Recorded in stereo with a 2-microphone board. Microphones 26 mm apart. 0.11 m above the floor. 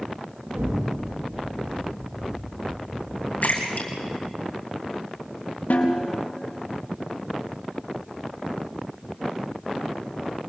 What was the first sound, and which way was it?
An explosion, 85° right.